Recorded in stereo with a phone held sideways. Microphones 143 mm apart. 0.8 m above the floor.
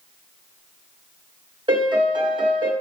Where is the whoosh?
No whoosh in this recording.